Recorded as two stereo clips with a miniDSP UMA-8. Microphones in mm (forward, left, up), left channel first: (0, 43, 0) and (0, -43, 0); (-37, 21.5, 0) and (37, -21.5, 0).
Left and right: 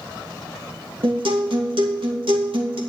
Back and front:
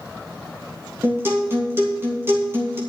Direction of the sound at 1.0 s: 90° right.